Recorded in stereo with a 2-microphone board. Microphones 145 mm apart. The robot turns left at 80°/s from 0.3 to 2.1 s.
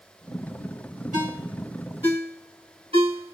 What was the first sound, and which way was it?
A ringtone, 60° right (ahead or behind).